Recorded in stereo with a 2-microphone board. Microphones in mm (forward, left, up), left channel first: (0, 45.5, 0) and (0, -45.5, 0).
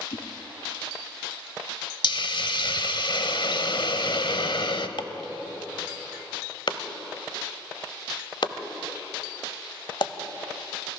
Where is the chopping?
60° left (ahead or behind), 0.8 m.